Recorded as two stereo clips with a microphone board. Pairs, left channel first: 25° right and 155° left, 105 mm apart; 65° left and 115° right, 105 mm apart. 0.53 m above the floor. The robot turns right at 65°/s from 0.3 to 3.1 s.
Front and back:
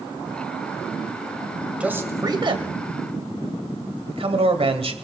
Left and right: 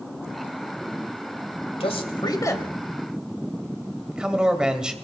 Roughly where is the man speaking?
Left.